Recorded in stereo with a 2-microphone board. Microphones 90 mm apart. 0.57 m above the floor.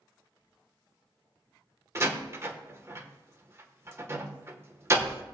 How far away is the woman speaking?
No woman speaking in this recording.